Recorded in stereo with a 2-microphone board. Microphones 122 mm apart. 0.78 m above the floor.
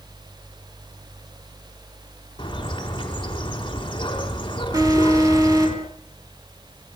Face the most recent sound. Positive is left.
turn(degrees=-30)  # may be behind; listen again after turning